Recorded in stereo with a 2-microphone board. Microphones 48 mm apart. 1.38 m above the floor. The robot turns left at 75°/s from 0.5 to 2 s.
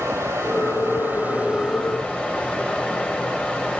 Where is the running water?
85° right, 3.5 m; by 3.8 s 165° left, 3.5 m.